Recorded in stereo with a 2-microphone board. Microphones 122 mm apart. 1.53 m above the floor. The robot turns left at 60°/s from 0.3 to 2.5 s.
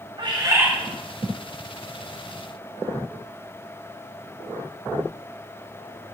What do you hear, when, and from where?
0.2 s a bird: 40° right (ahead or behind), 1.5 m; by 0.7 s 15° right (ahead or behind), 1.5 m